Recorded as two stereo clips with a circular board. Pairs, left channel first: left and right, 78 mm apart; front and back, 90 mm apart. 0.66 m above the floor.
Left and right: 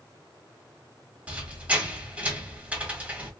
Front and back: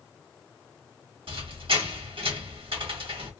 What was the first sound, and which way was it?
A squeak, 160° right.